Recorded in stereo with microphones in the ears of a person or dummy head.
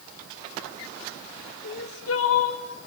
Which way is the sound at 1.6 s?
80° left.